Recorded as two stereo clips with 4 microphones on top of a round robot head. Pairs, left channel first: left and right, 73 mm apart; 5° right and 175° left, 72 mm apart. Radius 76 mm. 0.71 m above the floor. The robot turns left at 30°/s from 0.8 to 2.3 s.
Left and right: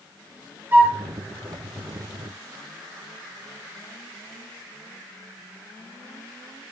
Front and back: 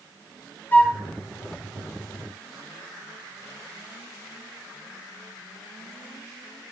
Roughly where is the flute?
Ahead right.